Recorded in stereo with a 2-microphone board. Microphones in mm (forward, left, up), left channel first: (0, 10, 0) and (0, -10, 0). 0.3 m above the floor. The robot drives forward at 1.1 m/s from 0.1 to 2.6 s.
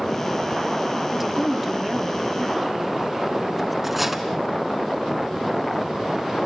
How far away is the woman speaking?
About 1.0 m.